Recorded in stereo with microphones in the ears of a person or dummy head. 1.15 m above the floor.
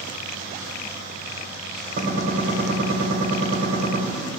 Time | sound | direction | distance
2.0 | a gunshot | 40° right (ahead or behind) | 1.5 m